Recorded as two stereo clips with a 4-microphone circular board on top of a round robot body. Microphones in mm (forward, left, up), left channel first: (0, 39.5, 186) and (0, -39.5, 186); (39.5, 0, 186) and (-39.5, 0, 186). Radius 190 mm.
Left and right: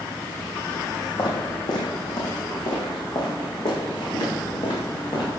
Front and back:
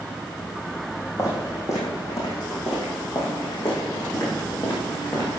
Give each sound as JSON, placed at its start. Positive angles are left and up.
{"t": 1.2, "sound": "footsteps", "azimuth_deg": 55, "distance_m": 3.5}